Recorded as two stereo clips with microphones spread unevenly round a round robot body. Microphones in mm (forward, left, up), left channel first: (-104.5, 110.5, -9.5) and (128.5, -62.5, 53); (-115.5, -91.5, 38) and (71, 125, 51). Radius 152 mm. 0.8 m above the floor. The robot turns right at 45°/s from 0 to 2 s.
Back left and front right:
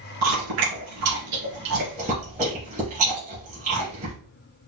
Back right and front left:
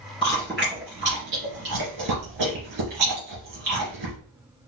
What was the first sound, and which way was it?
Chewing, 55° right.